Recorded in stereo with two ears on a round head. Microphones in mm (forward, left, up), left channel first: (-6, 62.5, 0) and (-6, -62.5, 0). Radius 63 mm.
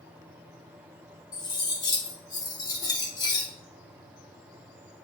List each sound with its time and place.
1.3 s cutlery clinking: 30° left (ahead or behind), 0.8 m